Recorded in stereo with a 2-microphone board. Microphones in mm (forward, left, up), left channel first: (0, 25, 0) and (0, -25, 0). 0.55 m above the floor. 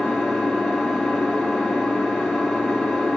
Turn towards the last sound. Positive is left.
turn(degrees=10)  # may be behind; listen again after turning